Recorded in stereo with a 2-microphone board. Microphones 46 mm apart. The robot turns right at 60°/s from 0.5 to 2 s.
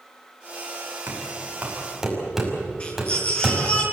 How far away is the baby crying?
About 9.5 m.